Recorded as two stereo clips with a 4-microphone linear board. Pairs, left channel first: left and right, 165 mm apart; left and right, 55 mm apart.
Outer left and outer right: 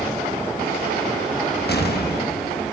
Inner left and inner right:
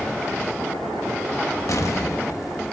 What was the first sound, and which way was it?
An explosion, 75° left (ahead or behind).